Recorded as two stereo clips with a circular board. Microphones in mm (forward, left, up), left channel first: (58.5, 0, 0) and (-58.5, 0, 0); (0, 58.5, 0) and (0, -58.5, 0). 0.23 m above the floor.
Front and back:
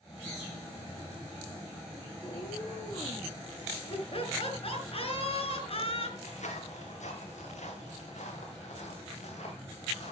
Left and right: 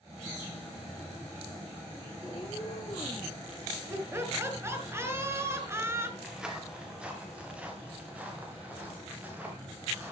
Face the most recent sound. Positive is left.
turn(degrees=-15)